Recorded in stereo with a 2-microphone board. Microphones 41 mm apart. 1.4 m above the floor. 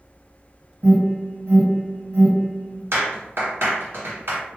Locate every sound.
0.8 s an alarm: 65° right (ahead or behind), 1.7 m
2.9 s a clap: 75° right (ahead or behind), 1.6 m